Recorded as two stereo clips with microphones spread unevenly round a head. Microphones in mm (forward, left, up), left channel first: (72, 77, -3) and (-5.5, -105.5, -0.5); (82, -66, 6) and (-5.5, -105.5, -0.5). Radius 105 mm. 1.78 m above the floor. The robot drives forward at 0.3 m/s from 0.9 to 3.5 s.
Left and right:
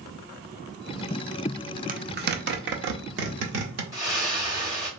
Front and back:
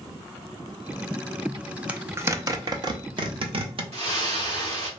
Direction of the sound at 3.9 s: 175° left.